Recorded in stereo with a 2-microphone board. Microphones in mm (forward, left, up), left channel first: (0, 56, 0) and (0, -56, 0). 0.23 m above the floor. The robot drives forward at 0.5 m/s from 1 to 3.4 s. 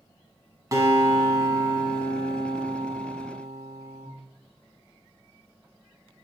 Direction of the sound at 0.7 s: 30° right (ahead or behind).